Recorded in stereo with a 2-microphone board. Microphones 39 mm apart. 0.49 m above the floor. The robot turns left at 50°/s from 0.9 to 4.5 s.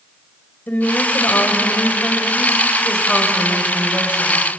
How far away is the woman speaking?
About 2.5 m.